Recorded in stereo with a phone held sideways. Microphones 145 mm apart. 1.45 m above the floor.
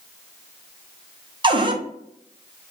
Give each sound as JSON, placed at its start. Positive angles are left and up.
{"t": 1.4, "sound": "a cupboard door", "side_deg": -35, "distance_m": 0.5}